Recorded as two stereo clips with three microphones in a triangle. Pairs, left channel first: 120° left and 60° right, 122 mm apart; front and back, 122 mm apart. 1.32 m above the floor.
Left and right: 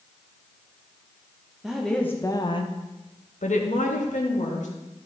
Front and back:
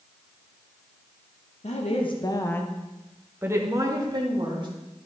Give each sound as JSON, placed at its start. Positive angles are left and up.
{"t": 1.6, "sound": "a woman speaking", "azimuth_deg": 25, "distance_m": 1.0}